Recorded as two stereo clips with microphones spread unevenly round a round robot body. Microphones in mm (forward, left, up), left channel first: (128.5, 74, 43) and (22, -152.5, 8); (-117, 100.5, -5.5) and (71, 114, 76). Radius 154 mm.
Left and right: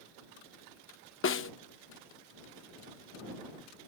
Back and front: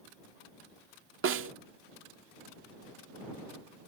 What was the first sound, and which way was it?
A snare drum, 25° left.